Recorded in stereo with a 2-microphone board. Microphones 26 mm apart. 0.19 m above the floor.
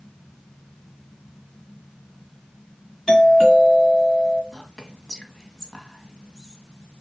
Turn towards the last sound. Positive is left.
turn(degrees=20)  # may be behind; listen again after turning